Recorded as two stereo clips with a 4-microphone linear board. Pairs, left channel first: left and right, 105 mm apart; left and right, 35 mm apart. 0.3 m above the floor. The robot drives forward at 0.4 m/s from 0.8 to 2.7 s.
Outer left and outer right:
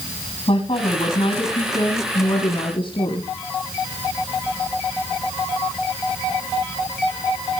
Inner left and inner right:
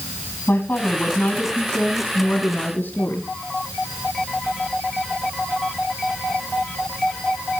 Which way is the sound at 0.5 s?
55° left (ahead or behind).